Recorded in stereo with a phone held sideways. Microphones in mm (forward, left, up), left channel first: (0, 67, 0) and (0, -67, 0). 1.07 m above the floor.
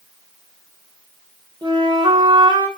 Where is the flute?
35° right (ahead or behind), 0.7 m.